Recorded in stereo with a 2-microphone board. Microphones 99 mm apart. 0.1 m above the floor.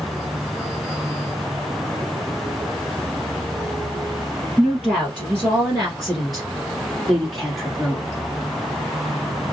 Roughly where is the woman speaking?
Centre.